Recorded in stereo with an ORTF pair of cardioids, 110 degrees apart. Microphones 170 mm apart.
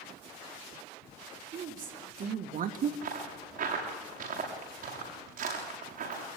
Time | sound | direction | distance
1.5 | a woman speaking | 50° right | 3.5 m
3.0 | footsteps | 55° right | 8 m